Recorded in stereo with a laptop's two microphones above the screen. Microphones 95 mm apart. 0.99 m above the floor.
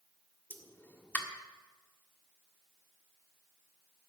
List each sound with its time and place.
0.5 s a pop: 20° left (ahead or behind), 1.5 m